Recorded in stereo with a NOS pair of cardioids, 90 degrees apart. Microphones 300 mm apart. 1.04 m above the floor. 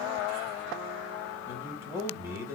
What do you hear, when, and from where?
1.5 s a man speaking: 5° left, 2.5 m